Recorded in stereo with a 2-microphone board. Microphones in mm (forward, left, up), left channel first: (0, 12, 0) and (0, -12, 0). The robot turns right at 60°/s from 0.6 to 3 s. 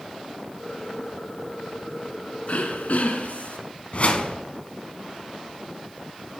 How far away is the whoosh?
About 0.9 m.